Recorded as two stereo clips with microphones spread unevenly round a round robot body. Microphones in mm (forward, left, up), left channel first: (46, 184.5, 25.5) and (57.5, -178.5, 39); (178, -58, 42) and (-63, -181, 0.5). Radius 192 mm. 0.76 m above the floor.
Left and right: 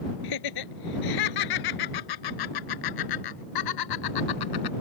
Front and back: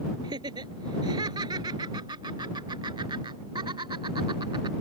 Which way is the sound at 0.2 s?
125° left.